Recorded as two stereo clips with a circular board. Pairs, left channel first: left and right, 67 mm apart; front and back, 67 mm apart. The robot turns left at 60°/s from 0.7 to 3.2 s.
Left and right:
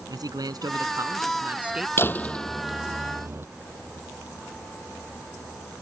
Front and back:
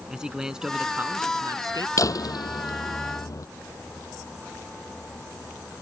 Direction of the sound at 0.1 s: 100° right.